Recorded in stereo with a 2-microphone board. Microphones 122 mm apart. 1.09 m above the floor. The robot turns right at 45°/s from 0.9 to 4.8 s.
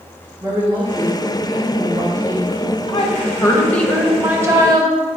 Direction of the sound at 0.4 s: 150° right.